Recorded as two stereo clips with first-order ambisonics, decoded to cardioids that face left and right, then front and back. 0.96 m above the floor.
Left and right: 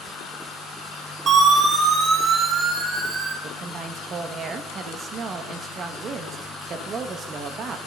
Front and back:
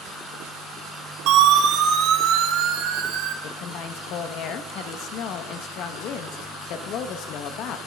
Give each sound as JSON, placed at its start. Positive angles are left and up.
{"t": 1.3, "sound": "a siren", "azimuth_deg": -150, "distance_m": 6.5}
{"t": 3.4, "sound": "a woman speaking", "azimuth_deg": -30, "distance_m": 1.5}